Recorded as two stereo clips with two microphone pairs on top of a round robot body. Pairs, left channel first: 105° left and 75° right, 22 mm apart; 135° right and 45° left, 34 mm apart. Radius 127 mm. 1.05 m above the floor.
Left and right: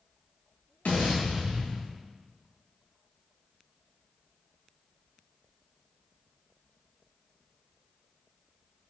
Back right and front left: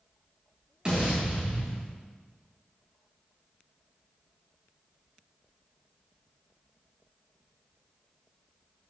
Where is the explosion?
110° left, 2 m.